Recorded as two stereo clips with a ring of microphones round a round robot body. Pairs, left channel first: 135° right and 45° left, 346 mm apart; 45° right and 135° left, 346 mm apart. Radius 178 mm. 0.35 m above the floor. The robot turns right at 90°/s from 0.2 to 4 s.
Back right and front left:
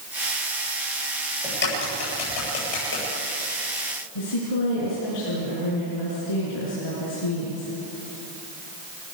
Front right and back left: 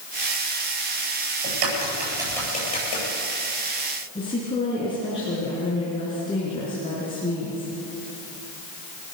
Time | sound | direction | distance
1.4 | a crack | 145° left | 9.5 m
4.2 | a woman speaking | 120° right | 4.5 m